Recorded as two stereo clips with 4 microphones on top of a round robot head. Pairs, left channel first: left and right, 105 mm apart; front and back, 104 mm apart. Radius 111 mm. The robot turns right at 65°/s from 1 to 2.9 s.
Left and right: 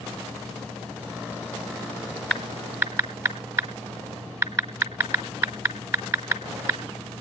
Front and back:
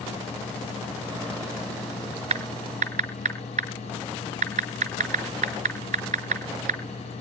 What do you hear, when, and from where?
2.3 s typing on a keyboard: 170° left, 1.5 m; by 6.8 s 150° right, 1.5 m